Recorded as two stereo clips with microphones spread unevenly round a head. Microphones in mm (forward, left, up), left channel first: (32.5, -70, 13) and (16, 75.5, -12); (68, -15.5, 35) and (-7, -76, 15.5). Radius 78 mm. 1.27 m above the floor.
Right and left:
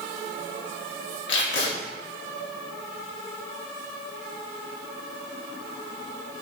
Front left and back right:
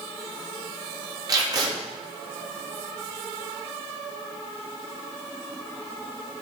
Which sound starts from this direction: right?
Tape being pulled, at 1.3 s.